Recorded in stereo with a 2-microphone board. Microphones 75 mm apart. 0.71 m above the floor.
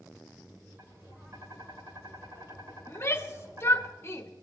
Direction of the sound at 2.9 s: 35° left (ahead or behind).